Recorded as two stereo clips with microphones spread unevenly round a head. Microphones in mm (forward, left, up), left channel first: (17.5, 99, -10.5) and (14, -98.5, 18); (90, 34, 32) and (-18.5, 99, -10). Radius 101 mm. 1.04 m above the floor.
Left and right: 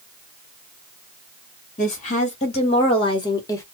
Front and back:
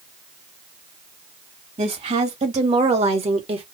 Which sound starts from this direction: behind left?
A woman speaking, at 1.8 s.